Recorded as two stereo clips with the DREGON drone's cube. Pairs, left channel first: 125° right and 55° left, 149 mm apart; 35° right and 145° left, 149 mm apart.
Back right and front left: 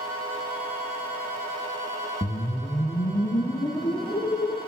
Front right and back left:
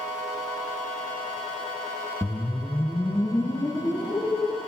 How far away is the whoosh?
About 0.5 m.